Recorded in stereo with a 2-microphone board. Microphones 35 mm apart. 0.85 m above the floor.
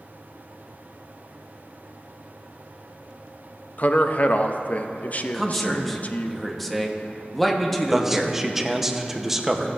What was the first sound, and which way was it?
A man speaking, 45° left (ahead or behind).